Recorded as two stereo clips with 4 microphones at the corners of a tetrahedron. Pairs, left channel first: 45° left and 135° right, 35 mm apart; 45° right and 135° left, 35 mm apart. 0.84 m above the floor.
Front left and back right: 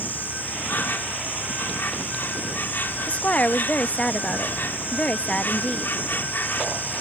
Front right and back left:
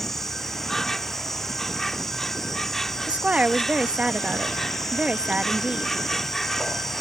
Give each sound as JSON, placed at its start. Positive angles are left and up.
{"t": 0.0, "sound": "an insect", "azimuth_deg": 40}
{"t": 3.1, "sound": "a woman speaking", "azimuth_deg": 90}